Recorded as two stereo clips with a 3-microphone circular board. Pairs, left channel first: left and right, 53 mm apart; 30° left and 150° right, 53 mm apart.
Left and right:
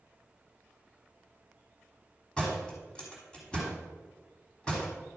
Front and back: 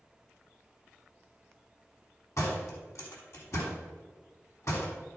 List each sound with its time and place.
2.4 s a door slam: 20° left, 3.5 m